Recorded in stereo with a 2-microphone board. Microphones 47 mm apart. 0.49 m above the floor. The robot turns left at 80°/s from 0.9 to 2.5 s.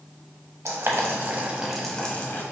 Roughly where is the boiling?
Right.